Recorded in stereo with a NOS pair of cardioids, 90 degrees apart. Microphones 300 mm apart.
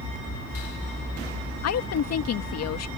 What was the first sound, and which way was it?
A woman speaking, 60° left.